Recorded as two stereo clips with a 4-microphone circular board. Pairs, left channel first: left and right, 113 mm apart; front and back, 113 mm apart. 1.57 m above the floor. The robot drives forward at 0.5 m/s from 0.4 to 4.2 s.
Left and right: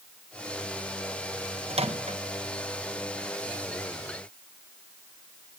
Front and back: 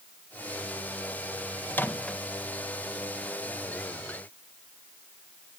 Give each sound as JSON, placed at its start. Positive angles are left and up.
{"t": 1.7, "sound": "a microwave", "azimuth_deg": -70, "distance_m": 1.2}